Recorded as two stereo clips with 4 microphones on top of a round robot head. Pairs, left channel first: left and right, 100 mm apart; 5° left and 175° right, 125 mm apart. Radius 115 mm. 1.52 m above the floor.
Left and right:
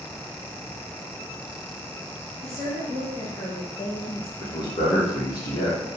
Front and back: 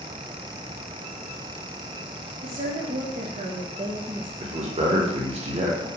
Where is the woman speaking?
Straight behind, 1.4 m; by 4.3 s 105° left, 0.6 m.